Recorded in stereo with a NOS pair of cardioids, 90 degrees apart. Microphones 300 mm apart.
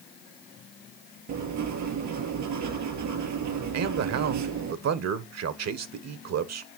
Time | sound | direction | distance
1.3 | writing | 70° right | 3.5 m
3.7 | a man speaking | 60° right | 1.4 m